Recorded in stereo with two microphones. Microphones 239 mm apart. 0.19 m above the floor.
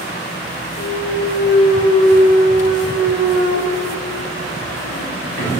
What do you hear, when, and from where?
0.8 s a clunk: 60° left (ahead or behind), 2.0 m